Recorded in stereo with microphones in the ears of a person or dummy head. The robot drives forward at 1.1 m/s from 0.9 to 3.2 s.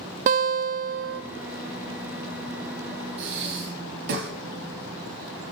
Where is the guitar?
45° right (ahead or behind), 0.8 m; by 1.2 s 55° right (ahead or behind), 0.7 m.